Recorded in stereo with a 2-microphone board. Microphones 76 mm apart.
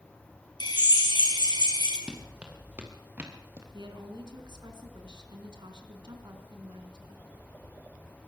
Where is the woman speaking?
75° right (ahead or behind), 4 m.